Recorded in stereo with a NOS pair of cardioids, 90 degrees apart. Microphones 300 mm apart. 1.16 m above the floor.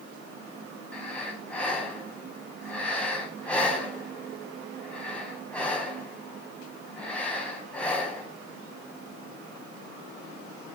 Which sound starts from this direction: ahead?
Breathing, at 0.9 s.